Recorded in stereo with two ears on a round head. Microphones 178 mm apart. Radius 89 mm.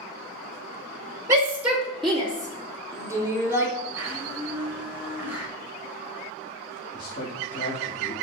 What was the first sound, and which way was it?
A shout, 15° right (ahead or behind).